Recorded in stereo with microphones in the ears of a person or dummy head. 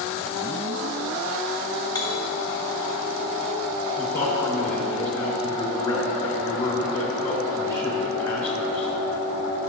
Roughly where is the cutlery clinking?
Left.